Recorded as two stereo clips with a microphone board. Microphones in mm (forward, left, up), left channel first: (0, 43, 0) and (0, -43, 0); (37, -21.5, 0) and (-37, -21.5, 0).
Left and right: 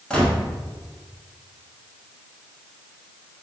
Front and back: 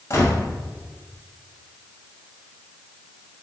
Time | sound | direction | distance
0.1 | a gunshot | 15° left | 0.8 m